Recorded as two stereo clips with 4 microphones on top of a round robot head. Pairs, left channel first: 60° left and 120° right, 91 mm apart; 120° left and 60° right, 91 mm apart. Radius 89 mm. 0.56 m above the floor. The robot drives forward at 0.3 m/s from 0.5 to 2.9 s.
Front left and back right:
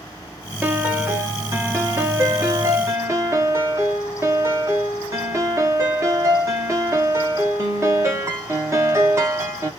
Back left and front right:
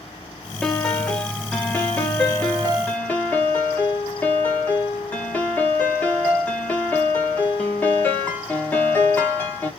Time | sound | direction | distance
0.6 | a piano | 160° right | 0.9 m